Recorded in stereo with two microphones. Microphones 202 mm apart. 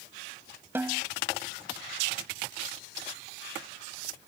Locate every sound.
0.8 s a snare drum: 10° right (ahead or behind)